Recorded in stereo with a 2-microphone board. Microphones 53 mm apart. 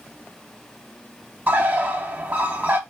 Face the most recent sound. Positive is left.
turn(degrees=-35)  # may be behind; listen again after turning